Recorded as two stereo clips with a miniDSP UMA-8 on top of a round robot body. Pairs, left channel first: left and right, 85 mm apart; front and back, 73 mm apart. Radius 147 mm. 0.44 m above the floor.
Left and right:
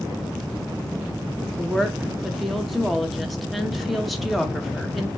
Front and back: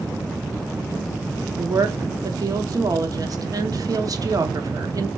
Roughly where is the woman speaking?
Behind.